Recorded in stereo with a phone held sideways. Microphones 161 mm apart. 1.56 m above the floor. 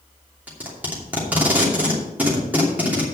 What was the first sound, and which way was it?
Tape being pulled, 10° right (ahead or behind).